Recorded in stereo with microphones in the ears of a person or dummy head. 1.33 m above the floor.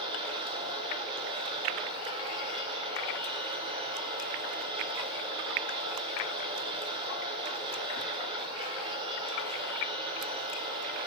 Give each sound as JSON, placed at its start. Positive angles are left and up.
{"t": 0.0, "sound": "a machine running", "side_deg": -25, "distance_m": 2.5}